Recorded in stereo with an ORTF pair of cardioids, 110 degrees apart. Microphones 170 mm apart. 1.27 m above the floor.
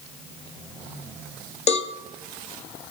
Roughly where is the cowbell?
Ahead left.